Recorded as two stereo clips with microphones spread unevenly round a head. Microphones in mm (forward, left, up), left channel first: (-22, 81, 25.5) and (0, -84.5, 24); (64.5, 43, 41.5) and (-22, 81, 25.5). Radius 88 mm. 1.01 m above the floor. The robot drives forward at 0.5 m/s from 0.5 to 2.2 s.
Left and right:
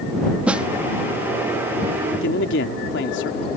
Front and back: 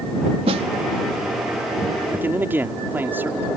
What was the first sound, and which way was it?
A snare drum, 165° right.